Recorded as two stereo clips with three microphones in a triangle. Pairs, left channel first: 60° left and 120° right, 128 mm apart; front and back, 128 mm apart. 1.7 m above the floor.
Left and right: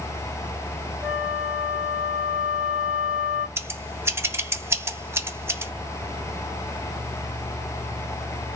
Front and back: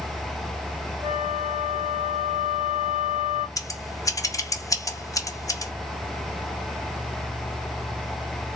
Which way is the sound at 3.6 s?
55° right.